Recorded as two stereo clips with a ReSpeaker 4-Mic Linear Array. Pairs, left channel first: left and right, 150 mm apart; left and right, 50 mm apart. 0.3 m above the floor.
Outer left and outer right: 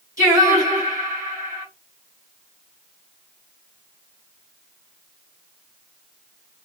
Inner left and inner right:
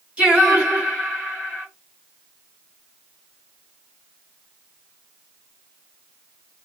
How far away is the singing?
About 1.7 m.